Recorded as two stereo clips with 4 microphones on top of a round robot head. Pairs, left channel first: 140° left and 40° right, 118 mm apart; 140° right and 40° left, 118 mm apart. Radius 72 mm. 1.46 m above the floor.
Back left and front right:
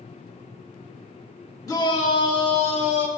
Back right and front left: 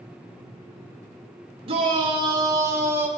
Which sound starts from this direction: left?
A shout, at 1.7 s.